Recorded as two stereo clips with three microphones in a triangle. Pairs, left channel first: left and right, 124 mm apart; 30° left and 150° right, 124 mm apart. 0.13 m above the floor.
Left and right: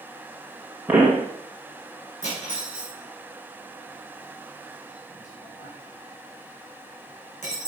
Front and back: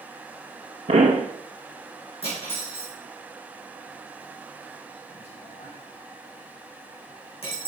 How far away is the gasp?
No gasp in this recording.